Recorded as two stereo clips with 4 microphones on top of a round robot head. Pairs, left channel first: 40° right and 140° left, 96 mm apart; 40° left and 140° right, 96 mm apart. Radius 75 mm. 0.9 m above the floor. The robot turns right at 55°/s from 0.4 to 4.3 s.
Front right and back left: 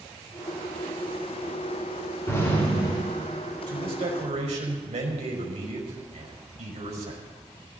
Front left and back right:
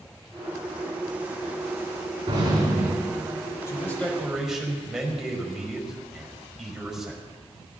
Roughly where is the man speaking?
Left.